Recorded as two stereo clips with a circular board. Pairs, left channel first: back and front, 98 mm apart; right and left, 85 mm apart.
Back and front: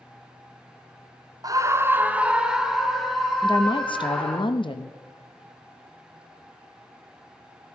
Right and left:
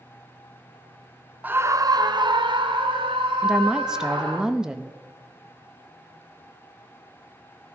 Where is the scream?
30° left, 0.6 m; by 4.4 s 95° left, 3 m.